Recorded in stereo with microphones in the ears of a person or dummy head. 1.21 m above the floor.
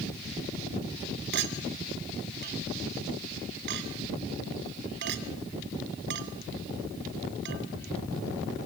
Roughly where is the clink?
Right.